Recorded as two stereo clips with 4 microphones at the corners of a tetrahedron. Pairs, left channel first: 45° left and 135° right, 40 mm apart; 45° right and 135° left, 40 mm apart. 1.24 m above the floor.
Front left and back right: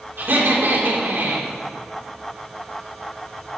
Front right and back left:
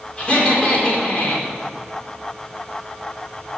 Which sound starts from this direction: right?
Laughter, at 0.2 s.